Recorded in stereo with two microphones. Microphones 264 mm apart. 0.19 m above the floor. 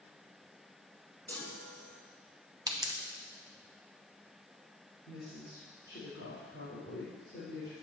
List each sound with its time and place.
1.3 s a chime: 5° left (ahead or behind), 1.2 m
2.7 s a pop: 15° right (ahead or behind), 1.3 m
5.1 s a woman speaking: 45° left (ahead or behind), 4.5 m